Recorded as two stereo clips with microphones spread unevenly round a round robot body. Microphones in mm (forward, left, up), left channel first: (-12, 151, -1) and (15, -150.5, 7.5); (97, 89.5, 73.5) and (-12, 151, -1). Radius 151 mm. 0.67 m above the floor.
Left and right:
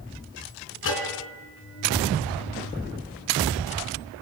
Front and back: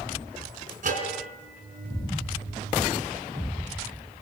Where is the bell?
145° left, 3 m.